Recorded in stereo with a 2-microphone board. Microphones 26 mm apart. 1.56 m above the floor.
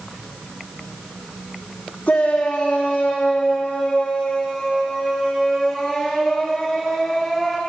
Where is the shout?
75° left (ahead or behind), 4 m; by 7.6 s 10° left (ahead or behind), 5.5 m.